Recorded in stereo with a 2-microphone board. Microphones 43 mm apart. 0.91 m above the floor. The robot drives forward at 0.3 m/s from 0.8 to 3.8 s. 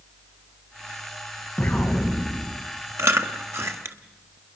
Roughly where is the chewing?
Right.